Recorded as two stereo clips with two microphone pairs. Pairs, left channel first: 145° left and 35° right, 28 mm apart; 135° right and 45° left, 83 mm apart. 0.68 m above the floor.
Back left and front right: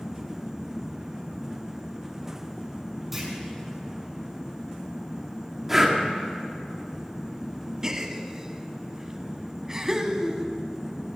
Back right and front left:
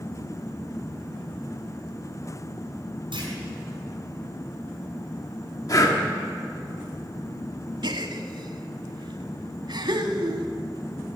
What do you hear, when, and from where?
3.1 s a clunk: 45° left, 5 m
5.7 s breathing: 110° right, 1.7 m
7.8 s a gasp: 35° left, 1.1 m